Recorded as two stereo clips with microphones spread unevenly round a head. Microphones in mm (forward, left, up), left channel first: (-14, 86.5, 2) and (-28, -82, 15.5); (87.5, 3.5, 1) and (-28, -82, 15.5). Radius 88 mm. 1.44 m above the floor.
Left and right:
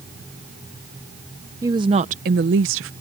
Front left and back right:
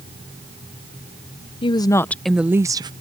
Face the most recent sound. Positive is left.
turn(degrees=-85)